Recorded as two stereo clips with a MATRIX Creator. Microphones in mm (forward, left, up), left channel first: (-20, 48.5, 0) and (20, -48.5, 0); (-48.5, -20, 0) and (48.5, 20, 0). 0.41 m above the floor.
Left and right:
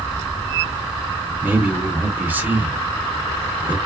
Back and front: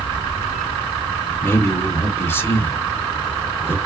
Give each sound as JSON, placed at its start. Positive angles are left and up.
{"t": 1.4, "sound": "a man speaking", "azimuth_deg": -120, "distance_m": 0.8}